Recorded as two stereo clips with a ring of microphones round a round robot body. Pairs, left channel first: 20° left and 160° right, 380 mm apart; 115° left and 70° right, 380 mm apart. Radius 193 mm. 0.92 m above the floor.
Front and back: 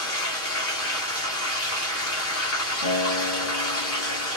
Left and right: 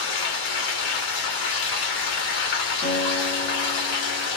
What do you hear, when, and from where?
0.0 s running water: 80° left, 1.3 m
2.8 s a guitar: 45° left, 1.0 m